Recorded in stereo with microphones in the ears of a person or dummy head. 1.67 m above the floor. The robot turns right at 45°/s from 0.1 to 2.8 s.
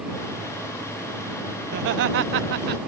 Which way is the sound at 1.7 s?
125° right.